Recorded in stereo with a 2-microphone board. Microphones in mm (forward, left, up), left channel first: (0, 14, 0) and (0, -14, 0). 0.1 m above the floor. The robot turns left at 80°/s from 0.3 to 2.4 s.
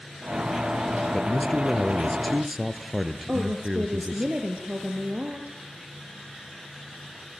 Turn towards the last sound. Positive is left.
turn(degrees=-55)  # may be behind; listen again after turning